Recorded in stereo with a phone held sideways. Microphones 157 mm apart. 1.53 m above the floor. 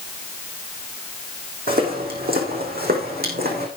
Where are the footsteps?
70° right (ahead or behind), 4.5 m; by 3.7 s 75° right (ahead or behind), 5 m.